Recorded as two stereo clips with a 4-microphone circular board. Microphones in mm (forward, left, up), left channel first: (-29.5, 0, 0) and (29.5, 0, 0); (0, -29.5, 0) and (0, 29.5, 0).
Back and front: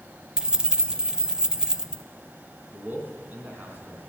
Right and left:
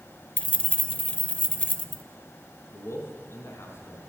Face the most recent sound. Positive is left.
turn(degrees=-55)